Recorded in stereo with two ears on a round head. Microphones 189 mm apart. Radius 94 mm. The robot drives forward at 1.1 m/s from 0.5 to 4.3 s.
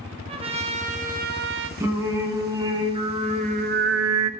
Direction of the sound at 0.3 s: 25° right (ahead or behind).